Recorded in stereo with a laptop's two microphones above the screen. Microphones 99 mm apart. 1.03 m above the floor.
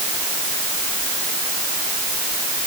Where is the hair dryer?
No hair dryer in this recording.